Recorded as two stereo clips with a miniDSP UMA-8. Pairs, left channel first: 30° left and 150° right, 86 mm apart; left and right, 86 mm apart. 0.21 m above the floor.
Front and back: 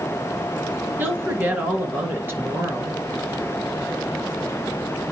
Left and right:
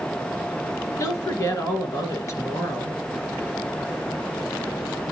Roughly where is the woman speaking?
Behind left.